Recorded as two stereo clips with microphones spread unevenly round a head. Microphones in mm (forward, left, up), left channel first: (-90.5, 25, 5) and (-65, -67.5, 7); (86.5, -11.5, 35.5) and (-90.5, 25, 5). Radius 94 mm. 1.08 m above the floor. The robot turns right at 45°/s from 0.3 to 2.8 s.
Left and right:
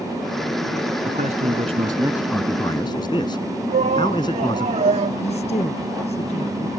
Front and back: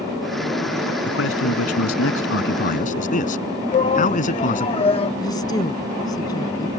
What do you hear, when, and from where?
1.1 s a man speaking: 40° right; by 4.7 s 35° left
3.7 s a shout: 75° right
5.2 s a woman speaking: 60° left